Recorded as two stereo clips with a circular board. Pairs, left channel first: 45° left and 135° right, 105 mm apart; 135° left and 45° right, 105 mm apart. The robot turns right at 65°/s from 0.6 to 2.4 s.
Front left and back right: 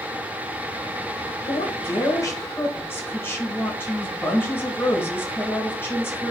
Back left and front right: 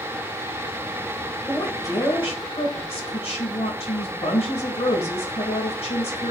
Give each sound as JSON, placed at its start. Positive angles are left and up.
{"t": 1.5, "sound": "a woman speaking", "azimuth_deg": 50, "distance_m": 2.0}